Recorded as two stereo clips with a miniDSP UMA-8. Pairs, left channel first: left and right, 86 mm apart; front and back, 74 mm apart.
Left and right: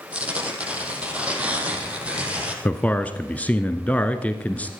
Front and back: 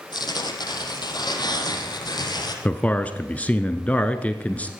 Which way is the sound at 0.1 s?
15° right.